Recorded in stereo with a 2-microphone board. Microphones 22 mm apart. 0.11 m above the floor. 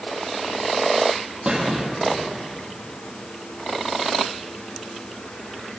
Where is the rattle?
No rattle in this recording.